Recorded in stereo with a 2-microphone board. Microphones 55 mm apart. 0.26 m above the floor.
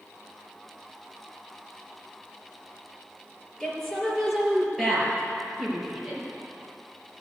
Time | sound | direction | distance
3.6 | a woman speaking | 10° left (ahead or behind) | 4.5 m